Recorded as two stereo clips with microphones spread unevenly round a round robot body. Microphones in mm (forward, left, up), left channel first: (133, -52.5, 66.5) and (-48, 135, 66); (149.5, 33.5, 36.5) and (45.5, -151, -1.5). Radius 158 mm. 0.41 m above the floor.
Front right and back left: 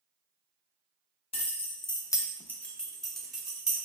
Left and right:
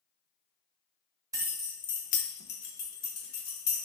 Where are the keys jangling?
90° right, 0.6 m; by 3.8 s 45° left, 1.4 m.